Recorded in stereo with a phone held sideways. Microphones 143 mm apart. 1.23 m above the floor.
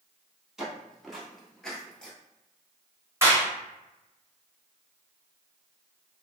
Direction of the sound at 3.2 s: 20° right (ahead or behind).